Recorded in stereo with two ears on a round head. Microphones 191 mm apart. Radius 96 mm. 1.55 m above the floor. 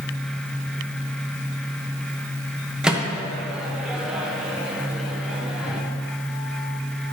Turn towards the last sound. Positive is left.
turn(degrees=-5)  # may be behind; listen again after turning